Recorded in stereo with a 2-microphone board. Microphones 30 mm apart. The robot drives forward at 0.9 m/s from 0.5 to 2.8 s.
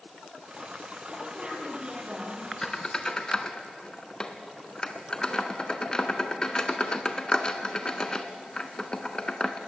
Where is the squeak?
25° left (ahead or behind), 1.4 m; by 9.6 s 30° left (ahead or behind), 1.2 m.